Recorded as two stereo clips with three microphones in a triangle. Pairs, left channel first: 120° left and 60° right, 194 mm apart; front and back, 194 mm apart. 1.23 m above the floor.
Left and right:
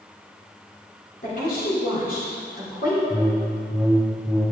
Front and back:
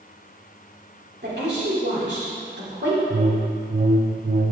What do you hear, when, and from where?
1.2 s a woman speaking: 160° left, 3 m
3.1 s a whoosh: 145° right, 0.6 m